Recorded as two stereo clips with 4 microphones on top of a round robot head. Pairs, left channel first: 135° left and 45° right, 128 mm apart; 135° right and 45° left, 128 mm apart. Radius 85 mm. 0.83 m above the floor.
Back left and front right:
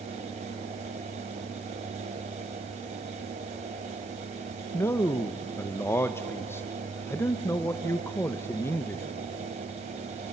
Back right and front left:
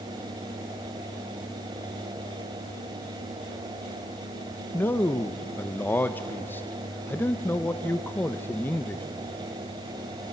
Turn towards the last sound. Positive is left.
turn(degrees=175)